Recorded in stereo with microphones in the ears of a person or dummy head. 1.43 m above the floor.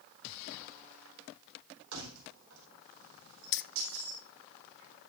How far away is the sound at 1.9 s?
About 4 m.